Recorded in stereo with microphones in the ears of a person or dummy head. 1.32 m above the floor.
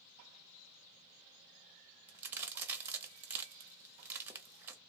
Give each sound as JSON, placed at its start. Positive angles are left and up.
{"t": 2.1, "sound": "a crack", "side_deg": -10, "distance_m": 0.8}